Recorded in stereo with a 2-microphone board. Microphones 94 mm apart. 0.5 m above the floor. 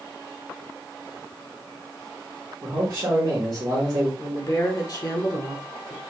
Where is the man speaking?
45° right (ahead or behind), 1.4 m.